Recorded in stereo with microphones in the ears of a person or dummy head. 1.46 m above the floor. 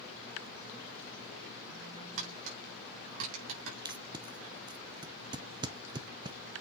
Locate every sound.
2.2 s tapping: 80° right, 5 m
3.9 s tape being pulled: 20° right (ahead or behind), 0.5 m